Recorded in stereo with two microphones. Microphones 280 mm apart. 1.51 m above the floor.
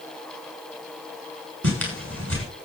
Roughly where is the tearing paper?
Right.